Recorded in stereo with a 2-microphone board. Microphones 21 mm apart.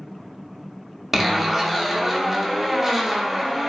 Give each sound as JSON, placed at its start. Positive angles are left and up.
{"t": 1.1, "sound": "a zipper", "side_deg": -10, "distance_m": 0.5}